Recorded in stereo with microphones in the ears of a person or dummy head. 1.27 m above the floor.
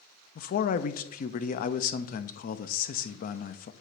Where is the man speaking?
50° left (ahead or behind), 0.5 m.